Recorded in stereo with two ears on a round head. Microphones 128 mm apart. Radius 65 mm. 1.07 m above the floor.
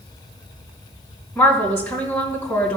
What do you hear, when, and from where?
1.4 s a woman speaking: 15° left (ahead or behind), 3 m